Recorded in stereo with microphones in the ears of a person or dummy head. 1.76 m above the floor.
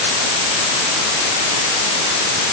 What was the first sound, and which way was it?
Only background noise.